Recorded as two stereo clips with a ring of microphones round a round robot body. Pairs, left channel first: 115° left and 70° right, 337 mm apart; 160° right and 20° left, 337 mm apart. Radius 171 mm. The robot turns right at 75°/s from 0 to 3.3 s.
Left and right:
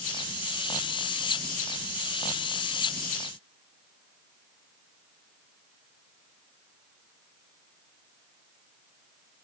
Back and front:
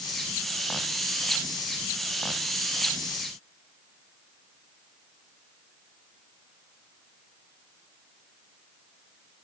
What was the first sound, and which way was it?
Only background noise.